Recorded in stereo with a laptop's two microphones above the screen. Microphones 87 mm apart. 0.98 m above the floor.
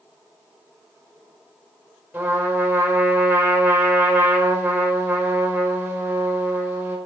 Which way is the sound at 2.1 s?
20° right (ahead or behind).